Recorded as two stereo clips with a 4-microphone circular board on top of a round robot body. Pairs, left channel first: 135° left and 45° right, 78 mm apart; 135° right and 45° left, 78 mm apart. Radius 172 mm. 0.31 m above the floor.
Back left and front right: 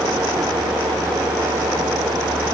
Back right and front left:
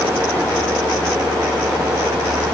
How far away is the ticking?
I don't hear ticking.